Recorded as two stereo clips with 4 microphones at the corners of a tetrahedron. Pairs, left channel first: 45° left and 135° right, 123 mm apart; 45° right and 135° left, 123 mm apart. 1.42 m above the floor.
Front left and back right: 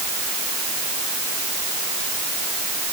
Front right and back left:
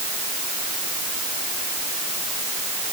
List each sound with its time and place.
Only background noise.